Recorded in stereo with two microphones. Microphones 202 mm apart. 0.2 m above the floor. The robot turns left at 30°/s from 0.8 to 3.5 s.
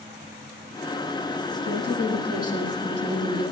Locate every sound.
1.6 s a woman speaking: 70° left, 6 m; by 3.5 s 15° left, 6 m